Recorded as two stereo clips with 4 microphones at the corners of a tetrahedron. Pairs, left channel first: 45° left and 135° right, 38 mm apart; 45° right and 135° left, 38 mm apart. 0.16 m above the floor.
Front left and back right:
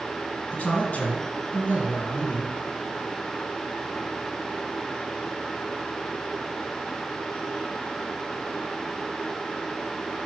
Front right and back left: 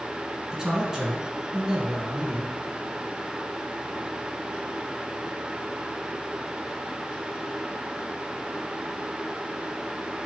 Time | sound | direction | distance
0.5 | a man speaking | 70° left | 1.7 m